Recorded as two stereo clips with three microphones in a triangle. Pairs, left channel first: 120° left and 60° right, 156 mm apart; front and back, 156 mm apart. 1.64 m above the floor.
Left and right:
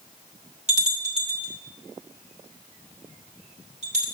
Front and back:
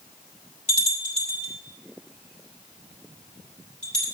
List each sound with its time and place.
0.7 s a bell: 30° right, 1.9 m